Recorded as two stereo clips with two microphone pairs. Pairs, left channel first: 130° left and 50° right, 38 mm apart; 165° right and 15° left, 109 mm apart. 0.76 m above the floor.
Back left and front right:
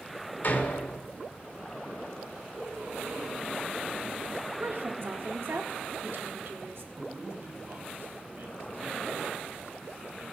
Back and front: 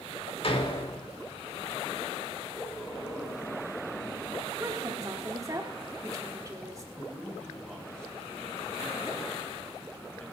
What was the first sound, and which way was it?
A door slam, 170° left.